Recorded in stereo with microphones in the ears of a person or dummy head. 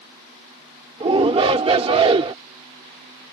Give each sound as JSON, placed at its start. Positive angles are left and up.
{"t": 1.0, "sound": "a shout", "side_deg": -35}